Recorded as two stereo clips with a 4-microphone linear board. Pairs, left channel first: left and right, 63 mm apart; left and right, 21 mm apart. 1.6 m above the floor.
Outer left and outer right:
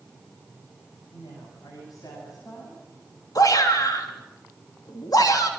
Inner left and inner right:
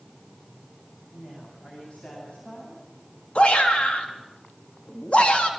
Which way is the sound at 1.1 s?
75° left (ahead or behind).